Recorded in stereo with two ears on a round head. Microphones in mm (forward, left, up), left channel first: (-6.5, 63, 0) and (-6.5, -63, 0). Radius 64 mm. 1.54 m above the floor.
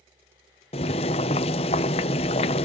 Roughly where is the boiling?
Left.